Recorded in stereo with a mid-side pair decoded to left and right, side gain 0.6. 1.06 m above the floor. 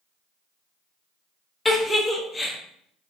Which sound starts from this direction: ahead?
A giggle, at 1.6 s.